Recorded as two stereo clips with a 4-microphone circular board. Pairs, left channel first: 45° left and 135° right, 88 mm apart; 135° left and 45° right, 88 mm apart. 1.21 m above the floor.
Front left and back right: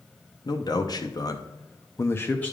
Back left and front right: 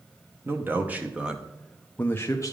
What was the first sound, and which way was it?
A man speaking, 15° left.